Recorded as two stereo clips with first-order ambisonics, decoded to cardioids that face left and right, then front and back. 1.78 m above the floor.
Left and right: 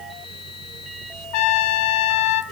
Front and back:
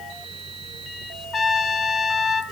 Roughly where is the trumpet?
Left.